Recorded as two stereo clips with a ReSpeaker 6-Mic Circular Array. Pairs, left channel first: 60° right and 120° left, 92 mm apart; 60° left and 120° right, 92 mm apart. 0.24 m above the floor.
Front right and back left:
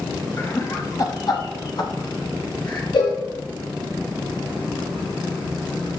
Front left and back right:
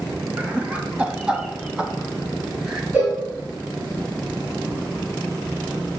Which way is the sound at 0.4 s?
65° right.